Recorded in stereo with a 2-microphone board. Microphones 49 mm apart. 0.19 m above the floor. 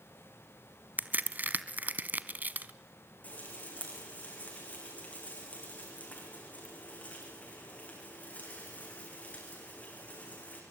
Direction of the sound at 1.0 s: 40° right (ahead or behind).